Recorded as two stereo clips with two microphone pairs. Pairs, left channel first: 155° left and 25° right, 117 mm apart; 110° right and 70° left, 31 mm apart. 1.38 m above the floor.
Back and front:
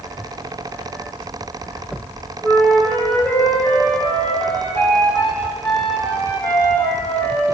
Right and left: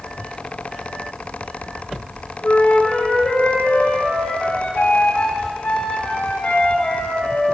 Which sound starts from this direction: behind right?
A flute, at 2.4 s.